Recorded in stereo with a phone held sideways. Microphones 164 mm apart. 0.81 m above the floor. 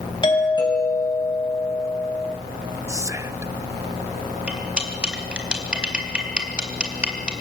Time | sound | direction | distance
0.2 | a doorbell | 30° left (ahead or behind) | 6 m
2.9 | whispering | 20° right (ahead or behind) | 0.6 m
4.5 | cutlery clinking | 5° right (ahead or behind) | 3.5 m